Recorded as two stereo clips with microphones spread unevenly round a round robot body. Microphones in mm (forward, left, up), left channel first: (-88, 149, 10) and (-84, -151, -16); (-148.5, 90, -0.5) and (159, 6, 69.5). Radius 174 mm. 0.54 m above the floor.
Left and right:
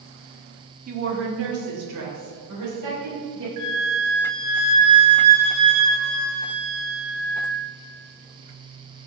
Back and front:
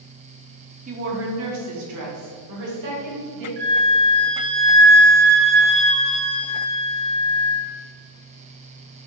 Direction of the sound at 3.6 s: 75° right.